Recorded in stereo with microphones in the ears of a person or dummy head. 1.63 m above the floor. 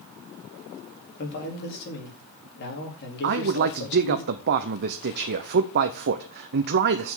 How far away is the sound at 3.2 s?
About 0.7 m.